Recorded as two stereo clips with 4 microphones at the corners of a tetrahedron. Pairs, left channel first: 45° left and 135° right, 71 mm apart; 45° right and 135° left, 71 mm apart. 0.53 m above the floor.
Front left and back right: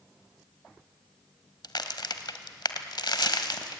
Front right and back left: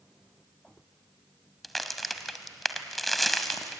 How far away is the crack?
About 1.2 m.